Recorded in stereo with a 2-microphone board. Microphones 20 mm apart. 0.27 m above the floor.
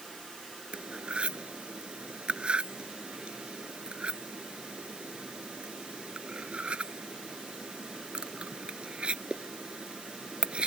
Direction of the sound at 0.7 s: 65° right (ahead or behind).